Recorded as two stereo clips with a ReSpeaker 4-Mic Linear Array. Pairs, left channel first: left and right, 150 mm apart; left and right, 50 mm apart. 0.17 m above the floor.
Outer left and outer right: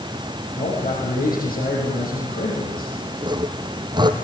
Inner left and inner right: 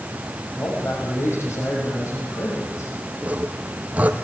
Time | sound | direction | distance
0.6 | a man speaking | 75° left (ahead or behind) | 6.5 m
3.2 | sawing | 30° right (ahead or behind) | 1.9 m